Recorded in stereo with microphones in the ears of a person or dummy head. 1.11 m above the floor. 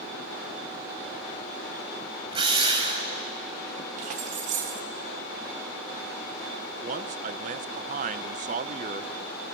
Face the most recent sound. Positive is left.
turn(degrees=-40)  # may be behind; listen again after turning